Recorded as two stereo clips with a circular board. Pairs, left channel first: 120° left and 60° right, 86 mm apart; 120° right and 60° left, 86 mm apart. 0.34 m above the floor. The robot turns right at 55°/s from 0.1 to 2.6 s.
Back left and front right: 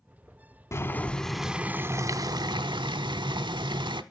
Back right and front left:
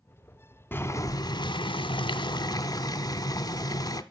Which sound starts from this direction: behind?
Boiling, at 0.7 s.